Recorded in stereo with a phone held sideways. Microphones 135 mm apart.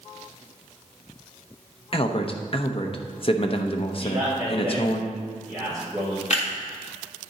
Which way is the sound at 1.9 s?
45° left (ahead or behind).